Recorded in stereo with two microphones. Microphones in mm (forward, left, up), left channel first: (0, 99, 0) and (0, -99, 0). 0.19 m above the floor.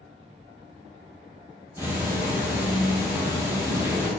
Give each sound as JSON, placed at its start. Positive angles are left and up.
{"t": 1.8, "sound": "ticking", "side_deg": -10, "distance_m": 0.8}